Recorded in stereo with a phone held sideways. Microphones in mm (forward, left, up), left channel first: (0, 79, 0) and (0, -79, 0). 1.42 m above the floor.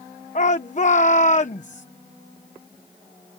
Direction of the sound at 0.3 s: 50° left (ahead or behind).